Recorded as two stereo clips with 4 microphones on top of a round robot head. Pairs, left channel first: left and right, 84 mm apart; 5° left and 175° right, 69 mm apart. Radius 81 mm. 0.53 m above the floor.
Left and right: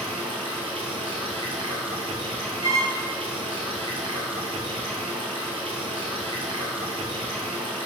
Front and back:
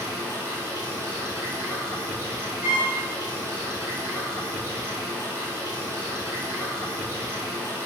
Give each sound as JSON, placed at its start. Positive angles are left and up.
{"t": 0.0, "sound": "running water", "azimuth_deg": -110, "distance_m": 1.1}
{"t": 2.6, "sound": "a violin", "azimuth_deg": -120, "distance_m": 1.8}